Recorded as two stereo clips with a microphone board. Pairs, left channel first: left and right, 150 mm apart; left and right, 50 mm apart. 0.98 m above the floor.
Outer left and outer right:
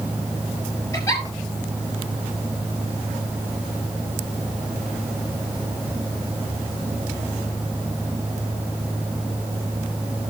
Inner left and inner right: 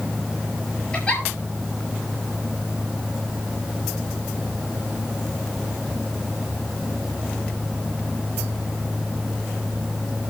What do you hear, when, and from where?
0.9 s a giggle: 20° left (ahead or behind), 7 m